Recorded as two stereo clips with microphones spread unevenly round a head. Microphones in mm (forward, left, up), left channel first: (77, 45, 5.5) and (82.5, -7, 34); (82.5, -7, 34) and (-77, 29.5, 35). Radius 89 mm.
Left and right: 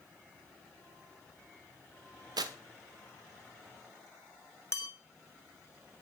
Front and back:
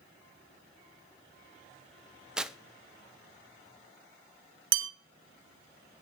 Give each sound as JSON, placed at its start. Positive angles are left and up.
{"t": 2.4, "sound": "tearing paper", "azimuth_deg": -105, "distance_m": 0.9}
{"t": 4.7, "sound": "a bell", "azimuth_deg": 180, "distance_m": 1.1}